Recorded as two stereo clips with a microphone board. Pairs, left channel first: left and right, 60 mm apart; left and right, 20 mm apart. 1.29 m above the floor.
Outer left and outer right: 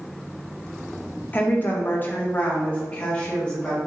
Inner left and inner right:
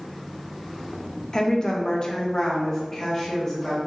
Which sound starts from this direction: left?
A woman speaking, at 1.3 s.